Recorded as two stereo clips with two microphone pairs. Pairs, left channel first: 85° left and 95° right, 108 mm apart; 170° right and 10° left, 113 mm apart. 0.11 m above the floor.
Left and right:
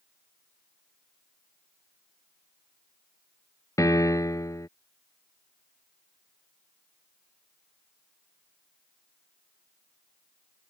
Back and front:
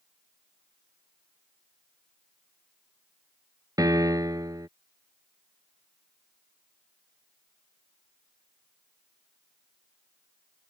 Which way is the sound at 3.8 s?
50° left.